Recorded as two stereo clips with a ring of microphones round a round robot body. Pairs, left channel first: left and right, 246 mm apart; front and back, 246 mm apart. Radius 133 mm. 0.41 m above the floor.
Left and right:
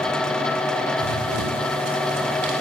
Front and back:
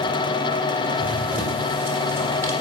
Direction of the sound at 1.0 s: 95° right.